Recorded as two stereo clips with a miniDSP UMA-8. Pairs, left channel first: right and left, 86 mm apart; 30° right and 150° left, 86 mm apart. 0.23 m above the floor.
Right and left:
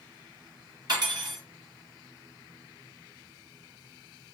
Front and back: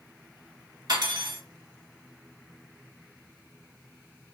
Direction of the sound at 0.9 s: 120° left.